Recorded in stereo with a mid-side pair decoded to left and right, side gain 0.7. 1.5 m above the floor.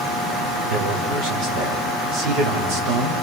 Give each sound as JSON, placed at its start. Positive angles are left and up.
{"t": 0.7, "sound": "a man speaking", "azimuth_deg": -60, "distance_m": 5.0}